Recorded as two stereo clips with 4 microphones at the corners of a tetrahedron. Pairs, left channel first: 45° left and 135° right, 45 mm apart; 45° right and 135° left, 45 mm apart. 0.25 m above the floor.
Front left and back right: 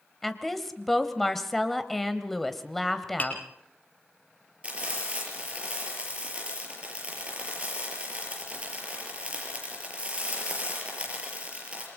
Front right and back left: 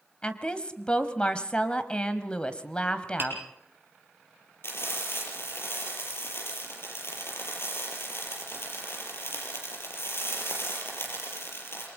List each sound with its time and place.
0.2 s a woman speaking: 35° right, 1.3 m
3.2 s tapping: 95° left, 5.5 m
4.6 s frying: 70° right, 6.5 m